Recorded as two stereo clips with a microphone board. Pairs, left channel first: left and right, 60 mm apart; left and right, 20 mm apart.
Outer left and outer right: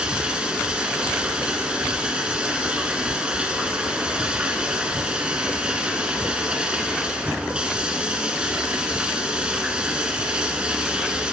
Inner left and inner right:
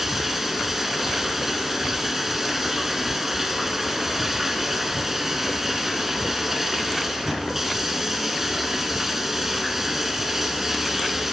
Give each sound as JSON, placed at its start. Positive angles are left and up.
{"t": 0.0, "sound": "running water", "side_deg": -15, "distance_m": 1.7}